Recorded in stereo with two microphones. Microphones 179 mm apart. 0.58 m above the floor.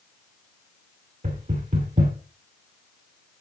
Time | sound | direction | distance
1.2 | knocking | 50° right (ahead or behind) | 1.9 m